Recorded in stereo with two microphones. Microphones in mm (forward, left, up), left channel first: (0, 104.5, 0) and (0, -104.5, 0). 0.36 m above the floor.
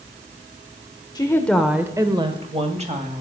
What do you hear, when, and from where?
1.1 s a woman speaking: 20° left (ahead or behind), 1.1 m; by 3.2 s 35° right (ahead or behind), 2.5 m